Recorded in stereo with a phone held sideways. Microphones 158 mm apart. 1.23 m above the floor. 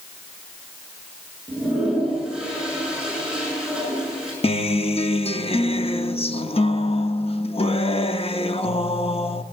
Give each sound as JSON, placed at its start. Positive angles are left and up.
{"t": 1.5, "sound": "a toilet flushing", "side_deg": -5, "distance_m": 8.5}
{"t": 4.4, "sound": "a guitar", "side_deg": 40, "distance_m": 1.0}